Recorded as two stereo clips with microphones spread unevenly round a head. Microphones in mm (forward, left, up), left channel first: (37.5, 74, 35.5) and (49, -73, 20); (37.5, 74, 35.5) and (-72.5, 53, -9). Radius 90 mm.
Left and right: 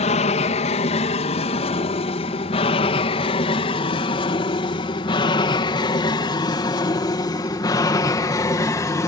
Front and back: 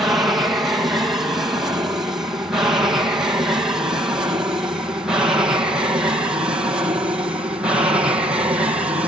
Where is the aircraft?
125° left; by 9.1 s 160° left.